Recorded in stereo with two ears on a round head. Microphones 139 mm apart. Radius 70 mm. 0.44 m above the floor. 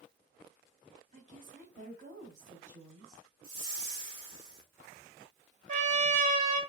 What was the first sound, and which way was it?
A woman speaking, 50° right (ahead or behind).